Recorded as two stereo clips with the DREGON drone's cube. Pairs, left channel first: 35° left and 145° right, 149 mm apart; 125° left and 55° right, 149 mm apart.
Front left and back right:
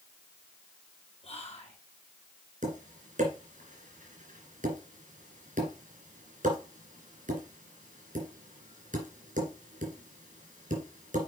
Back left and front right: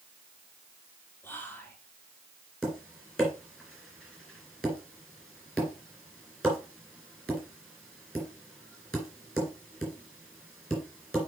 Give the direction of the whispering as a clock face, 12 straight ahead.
10 o'clock.